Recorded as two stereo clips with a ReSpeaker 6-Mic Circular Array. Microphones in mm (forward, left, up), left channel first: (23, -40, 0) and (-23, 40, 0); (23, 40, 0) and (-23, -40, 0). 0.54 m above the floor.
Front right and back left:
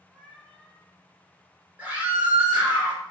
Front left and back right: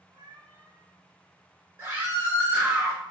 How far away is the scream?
About 1.5 m.